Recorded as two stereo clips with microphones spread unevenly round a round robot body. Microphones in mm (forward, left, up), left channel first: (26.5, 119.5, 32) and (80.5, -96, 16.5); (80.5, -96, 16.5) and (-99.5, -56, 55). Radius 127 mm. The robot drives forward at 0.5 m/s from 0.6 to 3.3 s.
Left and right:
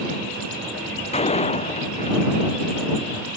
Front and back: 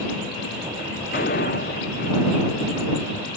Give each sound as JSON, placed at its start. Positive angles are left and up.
{"t": 1.1, "sound": "a door slam", "azimuth_deg": 40}